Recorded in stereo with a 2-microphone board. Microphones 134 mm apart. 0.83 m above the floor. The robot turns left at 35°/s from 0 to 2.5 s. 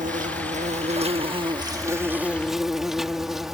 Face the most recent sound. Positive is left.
turn(degrees=180)